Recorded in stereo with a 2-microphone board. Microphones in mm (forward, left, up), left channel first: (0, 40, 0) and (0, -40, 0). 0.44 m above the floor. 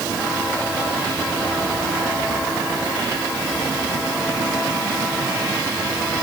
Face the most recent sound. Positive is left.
No sound to turn to.